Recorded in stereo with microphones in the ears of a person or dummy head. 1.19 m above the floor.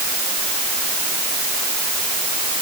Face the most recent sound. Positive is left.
No sound to turn to.